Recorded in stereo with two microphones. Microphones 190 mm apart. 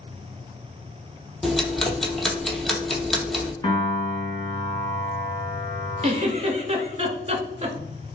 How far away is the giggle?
About 0.7 m.